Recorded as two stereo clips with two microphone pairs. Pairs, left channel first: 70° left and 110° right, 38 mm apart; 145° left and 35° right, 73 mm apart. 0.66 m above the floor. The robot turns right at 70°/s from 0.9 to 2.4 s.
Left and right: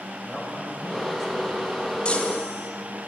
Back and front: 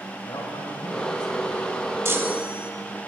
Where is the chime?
10° left, 1.0 m; by 2.7 s 35° left, 1.0 m.